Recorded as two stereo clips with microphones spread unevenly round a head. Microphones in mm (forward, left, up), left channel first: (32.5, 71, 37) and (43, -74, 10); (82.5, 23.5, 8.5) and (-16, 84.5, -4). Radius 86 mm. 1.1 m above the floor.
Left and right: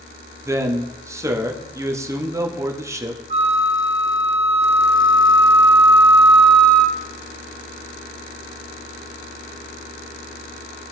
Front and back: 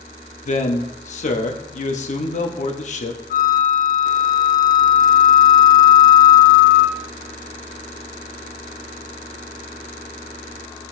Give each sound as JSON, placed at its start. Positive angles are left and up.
{"t": 0.5, "sound": "a man speaking", "azimuth_deg": -15, "distance_m": 1.2}
{"t": 3.3, "sound": "a flute", "azimuth_deg": -40, "distance_m": 0.8}